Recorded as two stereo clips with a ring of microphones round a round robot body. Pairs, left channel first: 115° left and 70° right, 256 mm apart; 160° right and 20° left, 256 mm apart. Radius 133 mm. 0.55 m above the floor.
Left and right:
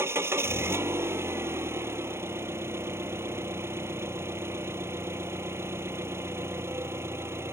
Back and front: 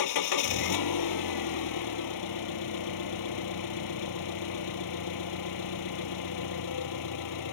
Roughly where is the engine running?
Behind right.